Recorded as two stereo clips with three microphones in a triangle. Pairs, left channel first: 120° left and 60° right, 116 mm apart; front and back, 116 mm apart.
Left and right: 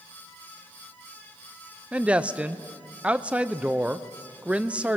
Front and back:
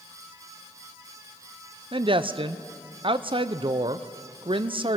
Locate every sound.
1.9 s a woman speaking: 140° right, 0.6 m